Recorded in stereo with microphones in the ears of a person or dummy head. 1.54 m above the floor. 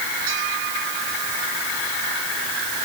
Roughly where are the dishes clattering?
No dishes clattering in this recording.